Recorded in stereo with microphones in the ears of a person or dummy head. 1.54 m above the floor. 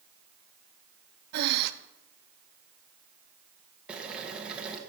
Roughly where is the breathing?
Right.